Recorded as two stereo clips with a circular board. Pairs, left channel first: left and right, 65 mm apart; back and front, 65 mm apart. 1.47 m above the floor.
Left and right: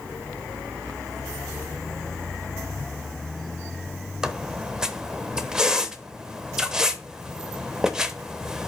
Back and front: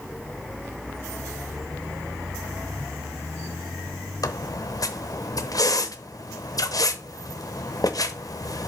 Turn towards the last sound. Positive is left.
turn(degrees=-170)